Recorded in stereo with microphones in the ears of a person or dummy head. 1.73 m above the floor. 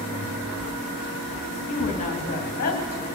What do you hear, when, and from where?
1.7 s a woman speaking: 35° left (ahead or behind), 3 m; by 3.1 s 45° left (ahead or behind), 1.9 m